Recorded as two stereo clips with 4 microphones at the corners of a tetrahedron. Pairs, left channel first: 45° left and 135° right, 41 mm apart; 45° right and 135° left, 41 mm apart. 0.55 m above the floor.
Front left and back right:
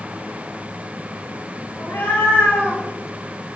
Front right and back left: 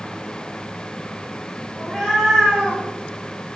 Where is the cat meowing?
50° left, 5.5 m; by 2.8 s 65° left, 6 m.